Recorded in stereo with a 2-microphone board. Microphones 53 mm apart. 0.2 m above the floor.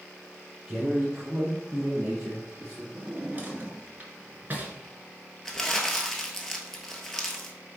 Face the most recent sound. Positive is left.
turn(degrees=10)  # may be behind; listen again after turning